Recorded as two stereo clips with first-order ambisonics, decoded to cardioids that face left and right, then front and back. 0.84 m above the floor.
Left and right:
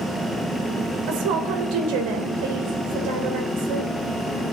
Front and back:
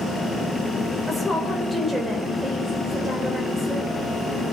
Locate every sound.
1.1 s a woman speaking: 95° right, 3 m